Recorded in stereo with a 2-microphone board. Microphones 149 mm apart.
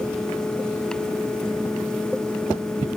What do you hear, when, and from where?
Only background noise.